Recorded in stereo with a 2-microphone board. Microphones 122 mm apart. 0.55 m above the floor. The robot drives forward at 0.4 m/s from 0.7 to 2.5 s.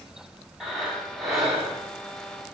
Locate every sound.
0.6 s breathing: 5° right (ahead or behind), 0.7 m